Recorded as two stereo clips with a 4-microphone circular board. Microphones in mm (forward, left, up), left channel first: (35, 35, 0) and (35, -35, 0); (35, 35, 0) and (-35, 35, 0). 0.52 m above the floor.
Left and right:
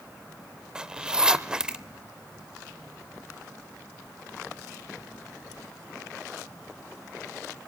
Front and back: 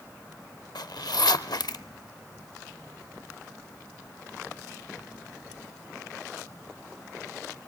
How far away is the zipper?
About 0.5 m.